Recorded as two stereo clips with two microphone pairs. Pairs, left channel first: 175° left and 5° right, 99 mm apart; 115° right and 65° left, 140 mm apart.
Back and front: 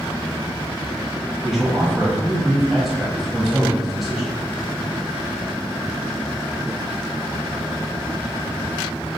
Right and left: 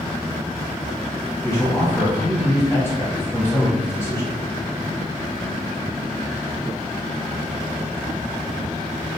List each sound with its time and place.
1.4 s a man speaking: 80° right, 1.0 m